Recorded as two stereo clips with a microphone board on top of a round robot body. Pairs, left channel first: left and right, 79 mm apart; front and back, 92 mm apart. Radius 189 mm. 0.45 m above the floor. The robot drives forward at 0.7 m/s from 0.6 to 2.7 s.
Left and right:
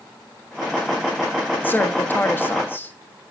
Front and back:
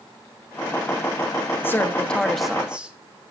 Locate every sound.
1.6 s a woman speaking: 45° left, 1.5 m; by 3.0 s 110° left, 1.4 m